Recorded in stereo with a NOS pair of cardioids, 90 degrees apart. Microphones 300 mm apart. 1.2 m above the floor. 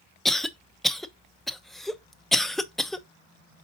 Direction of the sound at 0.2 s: Straight ahead.